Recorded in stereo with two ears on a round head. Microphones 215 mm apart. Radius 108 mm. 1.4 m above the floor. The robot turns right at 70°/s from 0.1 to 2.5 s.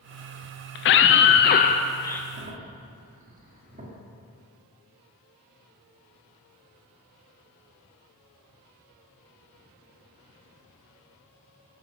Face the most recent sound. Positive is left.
turn(degrees=-30)  # may be behind; listen again after turning